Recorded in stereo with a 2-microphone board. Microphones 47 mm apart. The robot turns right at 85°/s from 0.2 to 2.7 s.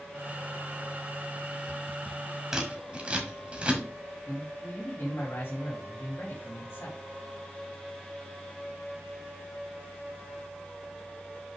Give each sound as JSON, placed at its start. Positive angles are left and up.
{"t": 2.5, "sound": "scissors", "side_deg": -10, "distance_m": 1.6}
{"t": 4.3, "sound": "a man speaking", "side_deg": 55, "distance_m": 2.5}